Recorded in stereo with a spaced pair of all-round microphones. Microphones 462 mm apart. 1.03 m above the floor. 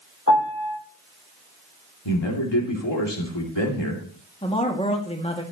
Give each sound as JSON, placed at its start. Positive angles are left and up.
{"t": 0.3, "sound": "a piano", "side_deg": 35, "distance_m": 7.5}
{"t": 2.0, "sound": "a man speaking", "side_deg": 60, "distance_m": 3.0}
{"t": 4.4, "sound": "a man speaking", "side_deg": 10, "distance_m": 2.0}